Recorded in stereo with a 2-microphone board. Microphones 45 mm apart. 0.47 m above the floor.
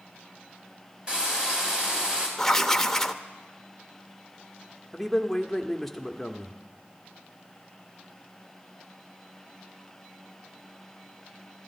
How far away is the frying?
About 3.5 m.